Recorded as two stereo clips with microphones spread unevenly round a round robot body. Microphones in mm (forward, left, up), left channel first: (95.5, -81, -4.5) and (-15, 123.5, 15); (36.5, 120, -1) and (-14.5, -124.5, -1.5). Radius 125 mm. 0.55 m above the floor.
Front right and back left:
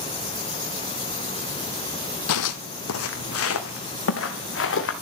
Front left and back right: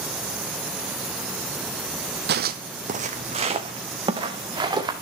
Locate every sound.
2.3 s footsteps: 55° right, 1.0 m; by 4.9 s 25° right, 3 m